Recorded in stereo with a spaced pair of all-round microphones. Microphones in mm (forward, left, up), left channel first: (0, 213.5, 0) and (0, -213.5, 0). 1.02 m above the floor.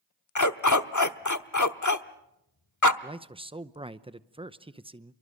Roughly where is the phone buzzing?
No phone buzzing in this recording.